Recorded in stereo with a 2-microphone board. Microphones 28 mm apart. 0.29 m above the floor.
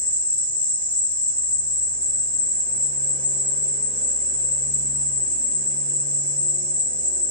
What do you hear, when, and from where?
0.0 s an insect: 60° left (ahead or behind), 0.9 m